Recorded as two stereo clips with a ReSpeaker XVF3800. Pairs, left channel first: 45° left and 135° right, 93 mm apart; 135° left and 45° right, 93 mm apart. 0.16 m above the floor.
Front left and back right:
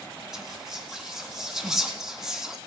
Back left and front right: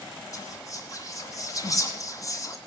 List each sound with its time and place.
0.3 s whispering: 145° left, 2.0 m